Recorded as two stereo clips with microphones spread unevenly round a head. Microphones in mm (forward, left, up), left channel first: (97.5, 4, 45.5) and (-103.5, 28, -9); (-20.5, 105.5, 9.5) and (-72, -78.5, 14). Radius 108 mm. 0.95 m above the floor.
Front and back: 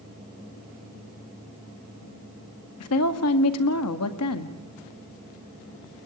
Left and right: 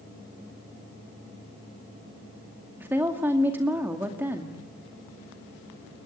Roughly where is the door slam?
I don't hear a door slam.